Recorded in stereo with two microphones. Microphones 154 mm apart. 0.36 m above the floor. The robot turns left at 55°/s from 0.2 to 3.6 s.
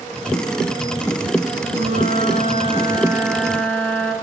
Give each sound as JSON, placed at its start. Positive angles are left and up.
{"t": 1.7, "sound": "a flute", "azimuth_deg": -80, "distance_m": 3.5}